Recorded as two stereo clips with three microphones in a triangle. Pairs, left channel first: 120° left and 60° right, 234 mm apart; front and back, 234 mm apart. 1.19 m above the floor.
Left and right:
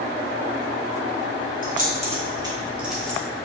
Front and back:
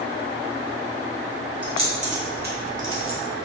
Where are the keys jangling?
110° right, 1.2 m; by 3.2 s 160° right, 0.9 m.